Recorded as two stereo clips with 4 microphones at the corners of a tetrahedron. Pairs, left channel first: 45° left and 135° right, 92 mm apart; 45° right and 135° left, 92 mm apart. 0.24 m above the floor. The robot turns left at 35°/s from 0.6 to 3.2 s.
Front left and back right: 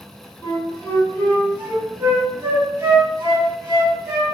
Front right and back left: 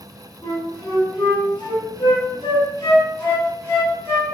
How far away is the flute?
About 1.9 m.